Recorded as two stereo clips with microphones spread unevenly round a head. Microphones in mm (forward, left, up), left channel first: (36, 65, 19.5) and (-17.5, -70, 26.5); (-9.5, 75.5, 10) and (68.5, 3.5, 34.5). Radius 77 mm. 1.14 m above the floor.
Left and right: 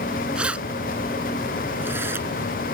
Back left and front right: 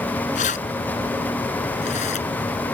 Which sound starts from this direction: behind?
Keys jangling, at 0.3 s.